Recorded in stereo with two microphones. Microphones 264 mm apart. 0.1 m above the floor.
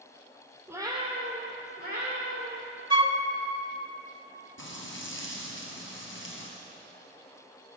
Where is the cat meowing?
10° right (ahead or behind), 1.5 m; by 2.8 s 45° right (ahead or behind), 4 m.